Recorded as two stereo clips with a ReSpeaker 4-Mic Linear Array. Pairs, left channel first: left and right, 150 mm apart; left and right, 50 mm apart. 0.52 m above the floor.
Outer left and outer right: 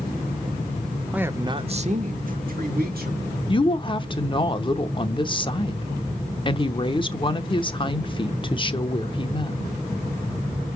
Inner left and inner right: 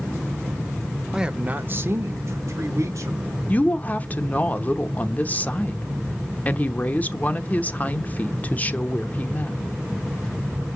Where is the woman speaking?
30° left (ahead or behind), 0.9 m.